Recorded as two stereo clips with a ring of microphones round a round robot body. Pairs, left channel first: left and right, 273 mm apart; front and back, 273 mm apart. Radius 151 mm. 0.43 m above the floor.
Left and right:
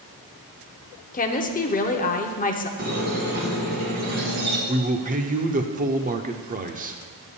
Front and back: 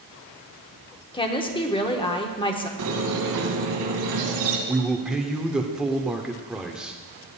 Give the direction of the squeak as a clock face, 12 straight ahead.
5 o'clock.